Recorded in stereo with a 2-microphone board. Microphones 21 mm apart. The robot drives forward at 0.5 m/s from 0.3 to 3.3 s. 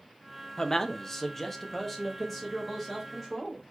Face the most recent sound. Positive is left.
turn(degrees=10)  # may be behind; listen again after turning